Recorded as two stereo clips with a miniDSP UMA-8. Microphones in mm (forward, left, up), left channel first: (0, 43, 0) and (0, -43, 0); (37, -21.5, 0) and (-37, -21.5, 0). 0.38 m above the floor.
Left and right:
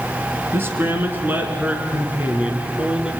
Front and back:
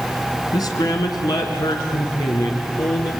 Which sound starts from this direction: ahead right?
A man speaking, at 0.5 s.